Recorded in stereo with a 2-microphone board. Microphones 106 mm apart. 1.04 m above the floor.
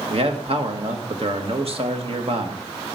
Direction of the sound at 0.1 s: 60° right (ahead or behind).